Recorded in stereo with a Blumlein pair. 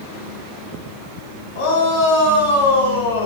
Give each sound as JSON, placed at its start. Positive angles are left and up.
{"t": 1.6, "sound": "a shout", "azimuth_deg": 60, "distance_m": 6.0}